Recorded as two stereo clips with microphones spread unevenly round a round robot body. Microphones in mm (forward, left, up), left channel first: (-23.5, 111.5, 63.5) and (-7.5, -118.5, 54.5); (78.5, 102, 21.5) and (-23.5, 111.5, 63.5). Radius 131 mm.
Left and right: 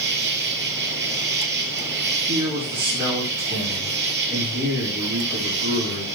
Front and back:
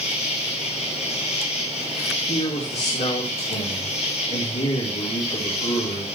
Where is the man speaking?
5° right, 7 m.